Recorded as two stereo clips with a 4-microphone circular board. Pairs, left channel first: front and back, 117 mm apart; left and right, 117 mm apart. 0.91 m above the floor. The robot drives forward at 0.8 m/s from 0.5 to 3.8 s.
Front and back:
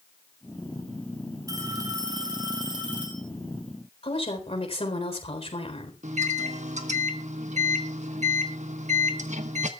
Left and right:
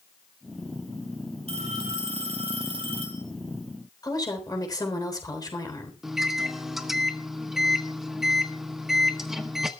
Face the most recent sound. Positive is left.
turn(degrees=-175)